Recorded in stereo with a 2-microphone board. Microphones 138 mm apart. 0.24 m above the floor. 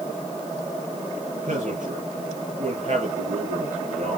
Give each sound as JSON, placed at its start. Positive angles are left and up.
{"t": 1.3, "sound": "a man speaking", "side_deg": -65, "distance_m": 5.0}